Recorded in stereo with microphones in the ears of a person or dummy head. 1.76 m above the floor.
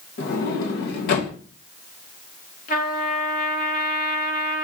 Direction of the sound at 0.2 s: 55° left (ahead or behind).